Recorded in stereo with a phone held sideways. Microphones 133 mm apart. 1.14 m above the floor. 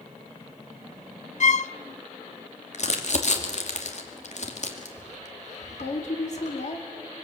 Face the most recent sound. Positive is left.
turn(degrees=60)  # may be behind; listen again after turning